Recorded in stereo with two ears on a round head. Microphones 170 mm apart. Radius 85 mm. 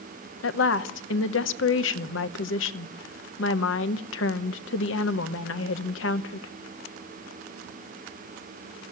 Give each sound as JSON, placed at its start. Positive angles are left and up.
{"t": 0.4, "sound": "a woman speaking", "side_deg": 70, "distance_m": 0.8}